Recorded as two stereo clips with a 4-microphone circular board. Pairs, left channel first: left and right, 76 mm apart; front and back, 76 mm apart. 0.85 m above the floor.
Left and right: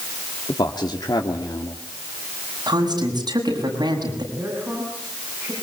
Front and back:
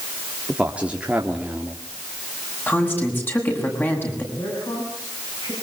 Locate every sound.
0.5 s a man speaking: 105° left, 2 m
2.7 s a woman speaking: 65° right, 7 m
4.3 s a man speaking: 25° right, 8 m